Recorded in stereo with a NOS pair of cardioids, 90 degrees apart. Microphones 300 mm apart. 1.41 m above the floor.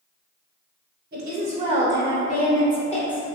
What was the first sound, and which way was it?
A woman speaking, 40° right.